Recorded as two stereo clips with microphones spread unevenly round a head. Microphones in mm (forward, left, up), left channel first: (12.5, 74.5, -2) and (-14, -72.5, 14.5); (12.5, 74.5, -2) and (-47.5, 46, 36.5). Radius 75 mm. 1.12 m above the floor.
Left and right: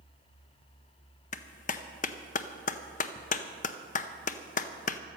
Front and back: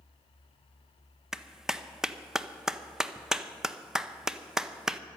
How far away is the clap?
About 0.7 m.